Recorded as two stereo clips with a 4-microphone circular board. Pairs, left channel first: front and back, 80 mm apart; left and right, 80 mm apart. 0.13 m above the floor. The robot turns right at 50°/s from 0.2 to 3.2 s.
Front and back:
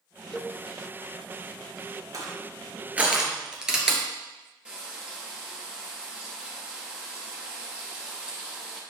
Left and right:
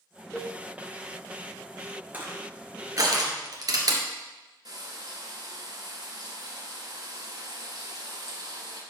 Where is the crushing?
155° right, 2.5 m; by 4.0 s 100° right, 2.5 m.